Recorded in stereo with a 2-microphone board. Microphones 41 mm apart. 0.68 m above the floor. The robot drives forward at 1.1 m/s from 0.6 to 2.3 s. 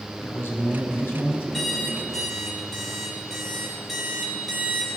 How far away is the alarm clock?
About 2.5 m.